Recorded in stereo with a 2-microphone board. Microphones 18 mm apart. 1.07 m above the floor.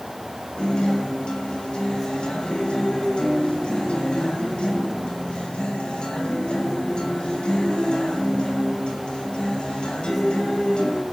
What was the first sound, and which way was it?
A guitar, 70° left (ahead or behind).